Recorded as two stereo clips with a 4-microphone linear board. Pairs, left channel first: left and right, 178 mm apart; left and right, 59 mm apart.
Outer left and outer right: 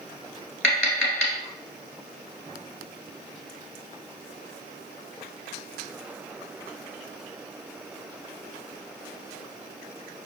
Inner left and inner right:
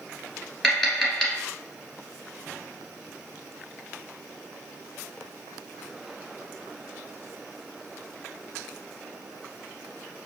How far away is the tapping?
About 1.3 m.